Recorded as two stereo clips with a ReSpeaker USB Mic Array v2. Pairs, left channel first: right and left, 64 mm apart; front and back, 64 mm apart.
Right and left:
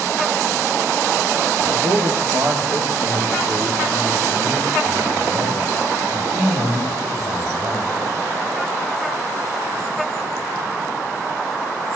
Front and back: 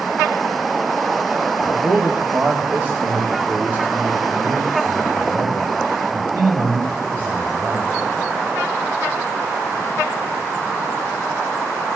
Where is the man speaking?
115° left, 2.0 m; by 8.0 s 120° left, 6 m.